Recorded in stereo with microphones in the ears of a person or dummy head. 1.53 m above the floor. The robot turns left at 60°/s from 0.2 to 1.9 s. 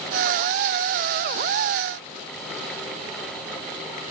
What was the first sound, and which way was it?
Only background noise.